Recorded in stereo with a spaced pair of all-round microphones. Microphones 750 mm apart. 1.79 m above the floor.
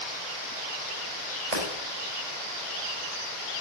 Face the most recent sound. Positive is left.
turn(degrees=-60)  # may be behind; listen again after turning